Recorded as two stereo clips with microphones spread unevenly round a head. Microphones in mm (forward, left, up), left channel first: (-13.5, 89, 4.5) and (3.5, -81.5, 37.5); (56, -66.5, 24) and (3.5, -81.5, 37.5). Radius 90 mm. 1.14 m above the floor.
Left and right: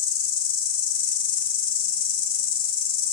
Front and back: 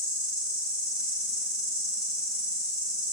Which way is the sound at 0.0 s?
135° left.